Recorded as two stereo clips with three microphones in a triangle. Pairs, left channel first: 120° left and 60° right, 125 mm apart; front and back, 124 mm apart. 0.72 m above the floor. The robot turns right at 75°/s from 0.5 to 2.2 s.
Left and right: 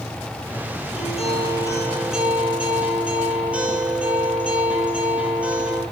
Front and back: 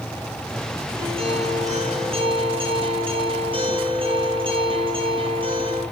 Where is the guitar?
130° left, 8.5 m; by 5.8 s 140° right, 8.5 m.